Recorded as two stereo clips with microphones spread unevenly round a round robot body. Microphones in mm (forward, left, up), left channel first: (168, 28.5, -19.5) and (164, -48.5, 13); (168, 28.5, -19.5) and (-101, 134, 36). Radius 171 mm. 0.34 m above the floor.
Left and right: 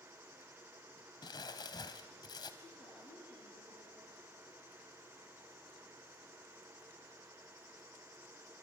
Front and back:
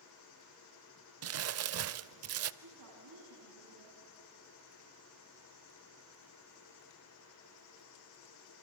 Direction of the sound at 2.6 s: 135° left.